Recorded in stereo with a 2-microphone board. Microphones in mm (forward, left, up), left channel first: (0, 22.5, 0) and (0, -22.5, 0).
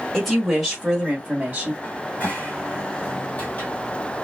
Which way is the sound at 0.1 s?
10° left (ahead or behind).